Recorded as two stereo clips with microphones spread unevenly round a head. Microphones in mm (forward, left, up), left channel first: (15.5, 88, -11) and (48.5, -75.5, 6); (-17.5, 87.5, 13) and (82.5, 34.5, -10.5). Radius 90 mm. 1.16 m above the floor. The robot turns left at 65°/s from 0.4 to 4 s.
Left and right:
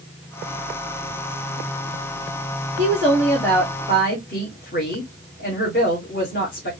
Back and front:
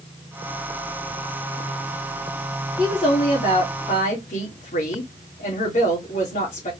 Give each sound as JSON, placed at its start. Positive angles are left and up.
{"t": 2.8, "sound": "a woman speaking", "azimuth_deg": -135, "distance_m": 2.0}